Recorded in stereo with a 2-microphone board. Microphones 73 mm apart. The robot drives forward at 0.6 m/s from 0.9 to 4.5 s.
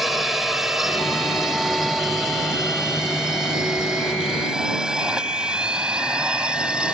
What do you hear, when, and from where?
0.0 s a drone: 5° right (ahead or behind); by 7.0 s 15° right (ahead or behind)